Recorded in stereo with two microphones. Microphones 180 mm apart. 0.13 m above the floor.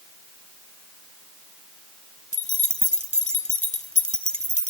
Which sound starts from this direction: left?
Keys jangling, at 2.3 s.